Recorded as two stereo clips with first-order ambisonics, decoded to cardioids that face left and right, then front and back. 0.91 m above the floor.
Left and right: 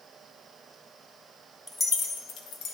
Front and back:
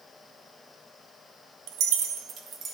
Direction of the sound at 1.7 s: 170° left.